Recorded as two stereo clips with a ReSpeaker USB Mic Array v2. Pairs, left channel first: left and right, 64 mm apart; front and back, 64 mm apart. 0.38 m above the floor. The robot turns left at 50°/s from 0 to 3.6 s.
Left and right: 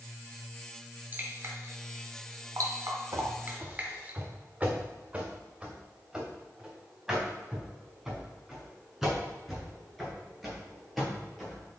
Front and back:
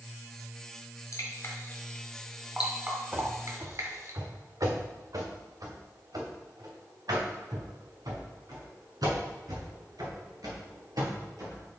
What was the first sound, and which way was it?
Dripping, 35° right.